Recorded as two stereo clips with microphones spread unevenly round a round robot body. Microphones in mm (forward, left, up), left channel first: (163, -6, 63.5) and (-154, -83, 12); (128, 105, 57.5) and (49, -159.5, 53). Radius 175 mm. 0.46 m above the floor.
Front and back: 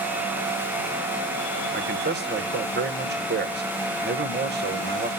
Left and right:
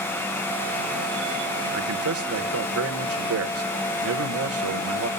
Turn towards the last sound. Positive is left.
turn(degrees=-120)